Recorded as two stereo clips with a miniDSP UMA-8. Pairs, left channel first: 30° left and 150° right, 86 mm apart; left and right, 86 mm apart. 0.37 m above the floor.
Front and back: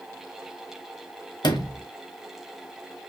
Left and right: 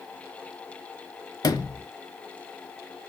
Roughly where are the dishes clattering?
No dishes clattering in this recording.